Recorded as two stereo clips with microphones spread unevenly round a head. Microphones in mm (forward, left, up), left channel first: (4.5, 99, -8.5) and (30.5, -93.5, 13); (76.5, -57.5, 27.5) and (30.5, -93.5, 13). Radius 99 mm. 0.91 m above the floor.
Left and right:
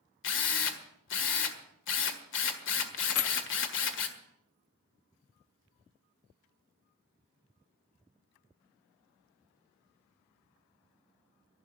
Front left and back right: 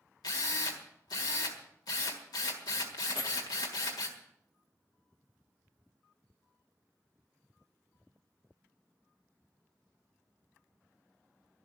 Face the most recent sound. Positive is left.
turn(degrees=90)